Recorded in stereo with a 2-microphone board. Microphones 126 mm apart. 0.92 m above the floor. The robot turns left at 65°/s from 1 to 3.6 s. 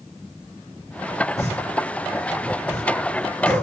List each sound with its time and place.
1.4 s a pop: 55° left (ahead or behind), 1.5 m; by 3.6 s 35° right (ahead or behind), 1.5 m